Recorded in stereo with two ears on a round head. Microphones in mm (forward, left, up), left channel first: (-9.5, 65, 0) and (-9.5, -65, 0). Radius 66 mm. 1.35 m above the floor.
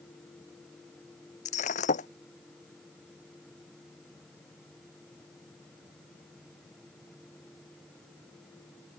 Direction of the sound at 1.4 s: 55° left (ahead or behind).